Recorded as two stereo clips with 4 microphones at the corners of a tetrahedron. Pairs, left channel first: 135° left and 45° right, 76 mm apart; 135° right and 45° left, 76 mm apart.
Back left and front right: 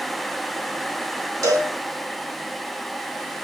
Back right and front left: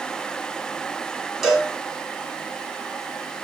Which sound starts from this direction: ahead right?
A cowbell, at 1.4 s.